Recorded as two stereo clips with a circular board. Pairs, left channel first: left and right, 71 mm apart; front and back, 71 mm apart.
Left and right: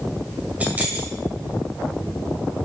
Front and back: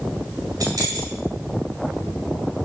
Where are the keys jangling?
155° right, 2 m.